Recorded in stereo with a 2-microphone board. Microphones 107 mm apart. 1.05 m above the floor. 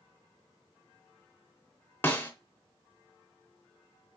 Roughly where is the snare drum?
Centre.